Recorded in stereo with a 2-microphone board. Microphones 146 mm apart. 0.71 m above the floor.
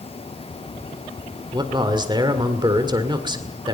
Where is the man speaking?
30° right (ahead or behind), 2.0 m.